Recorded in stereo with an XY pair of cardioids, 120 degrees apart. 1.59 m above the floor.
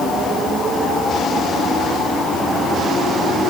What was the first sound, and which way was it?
Only background noise.